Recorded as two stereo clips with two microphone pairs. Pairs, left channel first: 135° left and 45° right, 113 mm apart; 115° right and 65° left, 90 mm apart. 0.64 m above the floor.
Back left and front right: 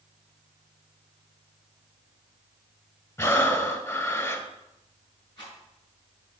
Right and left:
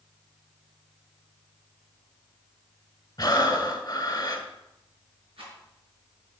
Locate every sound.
3.2 s breathing: 165° right, 1.7 m
5.4 s a rattle: 80° left, 5 m